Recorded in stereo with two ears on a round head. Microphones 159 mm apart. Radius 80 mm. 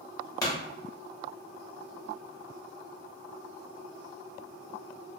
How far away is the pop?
About 1.1 m.